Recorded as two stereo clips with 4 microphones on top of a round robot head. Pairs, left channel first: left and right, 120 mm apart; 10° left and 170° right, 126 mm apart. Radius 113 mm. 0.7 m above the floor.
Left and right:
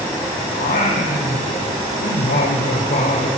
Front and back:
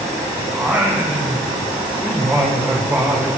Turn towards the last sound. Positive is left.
turn(degrees=110)